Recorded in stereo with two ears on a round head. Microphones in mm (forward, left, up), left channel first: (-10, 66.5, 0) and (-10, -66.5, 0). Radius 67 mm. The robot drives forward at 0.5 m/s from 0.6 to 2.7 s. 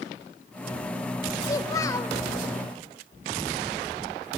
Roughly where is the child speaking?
Left.